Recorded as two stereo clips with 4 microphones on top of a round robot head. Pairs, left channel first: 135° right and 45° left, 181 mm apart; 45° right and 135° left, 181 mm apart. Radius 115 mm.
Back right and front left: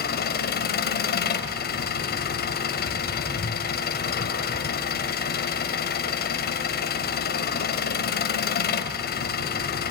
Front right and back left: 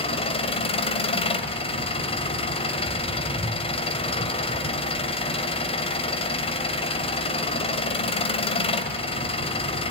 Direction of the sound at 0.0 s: 105° right.